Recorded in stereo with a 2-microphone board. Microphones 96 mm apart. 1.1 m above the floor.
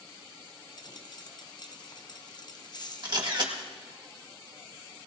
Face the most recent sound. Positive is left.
turn(degrees=-50)  # may be behind; listen again after turning